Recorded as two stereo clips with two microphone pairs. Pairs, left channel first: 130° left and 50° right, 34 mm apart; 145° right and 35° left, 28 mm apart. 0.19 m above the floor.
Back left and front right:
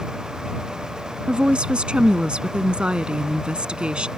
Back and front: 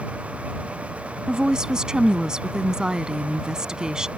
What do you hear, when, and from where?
1.3 s a woman speaking: 15° right